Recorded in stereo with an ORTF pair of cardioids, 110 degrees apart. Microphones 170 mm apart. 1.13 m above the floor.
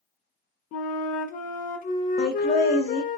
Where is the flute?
60° left, 0.5 m.